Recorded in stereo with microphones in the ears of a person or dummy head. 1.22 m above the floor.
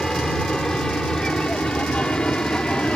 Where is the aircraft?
5° left (ahead or behind); by 3.0 s 10° left (ahead or behind).